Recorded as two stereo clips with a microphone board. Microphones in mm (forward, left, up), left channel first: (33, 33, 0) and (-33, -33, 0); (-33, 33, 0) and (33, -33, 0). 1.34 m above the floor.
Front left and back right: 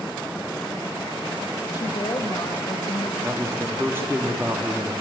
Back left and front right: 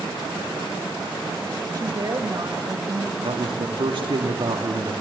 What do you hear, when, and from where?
1.7 s a woman speaking: straight ahead, 2.5 m
3.2 s a man speaking: 70° right, 2.5 m